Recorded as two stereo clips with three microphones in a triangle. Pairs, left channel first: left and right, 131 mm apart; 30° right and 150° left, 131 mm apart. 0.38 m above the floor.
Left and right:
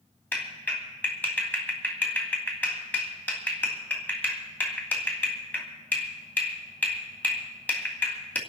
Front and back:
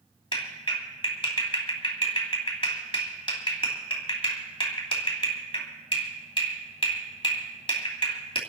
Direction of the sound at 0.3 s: 15° left.